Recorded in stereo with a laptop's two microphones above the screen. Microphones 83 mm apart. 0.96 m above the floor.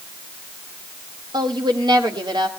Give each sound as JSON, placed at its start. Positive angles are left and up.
{"t": 1.3, "sound": "a woman speaking", "side_deg": -65, "distance_m": 2.0}